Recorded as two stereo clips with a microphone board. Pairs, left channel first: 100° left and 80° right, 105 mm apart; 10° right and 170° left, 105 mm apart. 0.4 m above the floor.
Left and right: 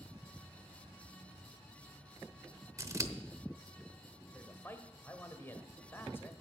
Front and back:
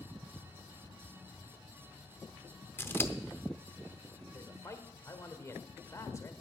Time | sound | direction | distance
2.8 | scissors | 60° right | 0.8 m
4.3 | a man speaking | 40° left | 1.2 m